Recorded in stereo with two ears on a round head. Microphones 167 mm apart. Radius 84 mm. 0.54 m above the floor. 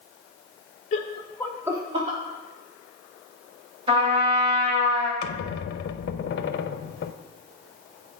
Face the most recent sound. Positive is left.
turn(degrees=60)  # may be behind; listen again after turning